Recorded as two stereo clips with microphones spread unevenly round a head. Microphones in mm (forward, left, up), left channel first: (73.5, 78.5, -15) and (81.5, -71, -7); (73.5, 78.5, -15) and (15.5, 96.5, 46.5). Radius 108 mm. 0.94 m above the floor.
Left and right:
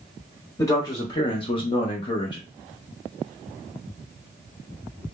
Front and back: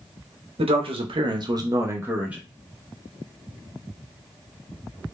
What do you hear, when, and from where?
0.6 s a man speaking: 160° left, 0.7 m; by 2.4 s 45° left, 0.8 m